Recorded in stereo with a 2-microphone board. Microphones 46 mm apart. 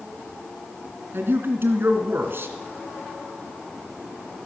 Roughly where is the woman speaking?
Right.